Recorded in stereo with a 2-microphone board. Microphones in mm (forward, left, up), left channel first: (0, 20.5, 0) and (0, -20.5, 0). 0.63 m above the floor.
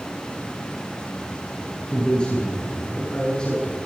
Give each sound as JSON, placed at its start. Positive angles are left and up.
{"t": 1.9, "sound": "a man speaking", "side_deg": 20, "distance_m": 7.0}